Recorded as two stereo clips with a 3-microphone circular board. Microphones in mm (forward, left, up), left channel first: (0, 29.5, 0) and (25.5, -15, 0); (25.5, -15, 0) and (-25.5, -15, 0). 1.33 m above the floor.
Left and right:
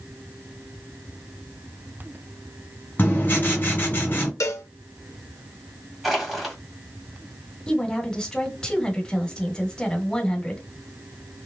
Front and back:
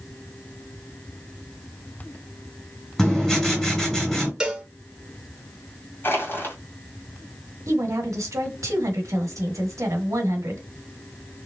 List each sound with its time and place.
3.0 s writing: 75° left, 2 m
4.4 s a cowbell: 105° left, 0.9 m
6.0 s crushing: 30° left, 1.8 m
7.7 s a woman speaking: 165° right, 1.3 m